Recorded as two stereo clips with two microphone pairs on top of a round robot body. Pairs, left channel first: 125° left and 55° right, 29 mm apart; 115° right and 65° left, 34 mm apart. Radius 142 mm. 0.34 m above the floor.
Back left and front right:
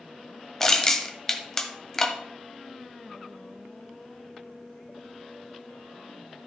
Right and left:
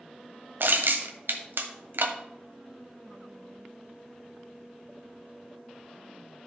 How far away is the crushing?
About 1.4 m.